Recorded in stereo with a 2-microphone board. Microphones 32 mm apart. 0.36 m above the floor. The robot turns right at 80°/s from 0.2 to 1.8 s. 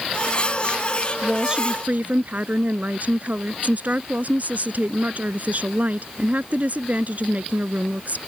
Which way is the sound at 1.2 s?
Straight behind.